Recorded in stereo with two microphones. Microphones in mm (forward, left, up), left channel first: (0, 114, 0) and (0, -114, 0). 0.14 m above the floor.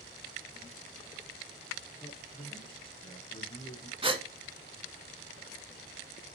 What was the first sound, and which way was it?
A man speaking, 25° left (ahead or behind).